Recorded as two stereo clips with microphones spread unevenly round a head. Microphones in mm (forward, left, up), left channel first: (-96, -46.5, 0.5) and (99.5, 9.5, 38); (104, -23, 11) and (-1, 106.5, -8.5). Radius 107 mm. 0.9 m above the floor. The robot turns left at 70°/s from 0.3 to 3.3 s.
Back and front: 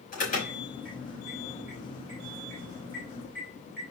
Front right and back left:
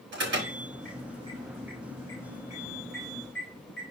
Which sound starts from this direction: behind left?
An alarm, at 0.1 s.